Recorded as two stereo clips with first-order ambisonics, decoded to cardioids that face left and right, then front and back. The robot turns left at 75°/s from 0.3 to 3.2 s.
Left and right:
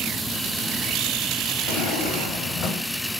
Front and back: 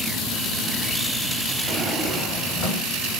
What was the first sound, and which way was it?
A drawer, 105° left.